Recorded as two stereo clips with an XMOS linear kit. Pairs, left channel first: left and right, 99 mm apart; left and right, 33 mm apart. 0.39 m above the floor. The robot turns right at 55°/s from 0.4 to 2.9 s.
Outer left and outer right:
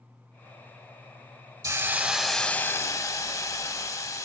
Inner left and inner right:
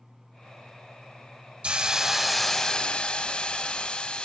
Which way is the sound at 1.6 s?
35° right.